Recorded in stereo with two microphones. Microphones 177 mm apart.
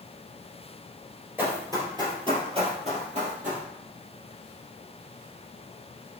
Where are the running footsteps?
10° right (ahead or behind), 1.8 m; by 3.6 s 50° right (ahead or behind), 2.5 m.